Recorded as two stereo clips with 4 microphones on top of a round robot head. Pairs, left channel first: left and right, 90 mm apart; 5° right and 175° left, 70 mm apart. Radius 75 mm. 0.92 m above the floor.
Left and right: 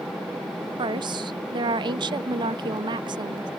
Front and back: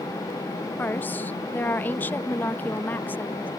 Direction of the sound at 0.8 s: 70° right.